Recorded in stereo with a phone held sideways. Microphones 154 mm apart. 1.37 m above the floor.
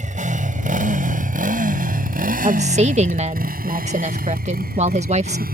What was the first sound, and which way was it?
A motorcycle, 55° right (ahead or behind).